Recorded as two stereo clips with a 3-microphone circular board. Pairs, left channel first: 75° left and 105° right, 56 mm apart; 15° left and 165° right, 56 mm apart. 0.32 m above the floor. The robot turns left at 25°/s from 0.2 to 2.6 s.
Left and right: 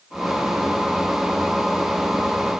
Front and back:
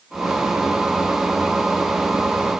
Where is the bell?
I don't hear a bell.